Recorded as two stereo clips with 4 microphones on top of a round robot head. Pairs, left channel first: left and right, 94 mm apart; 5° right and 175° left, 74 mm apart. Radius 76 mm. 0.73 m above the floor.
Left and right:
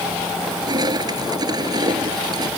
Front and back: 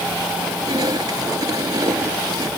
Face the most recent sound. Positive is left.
turn(degrees=-135)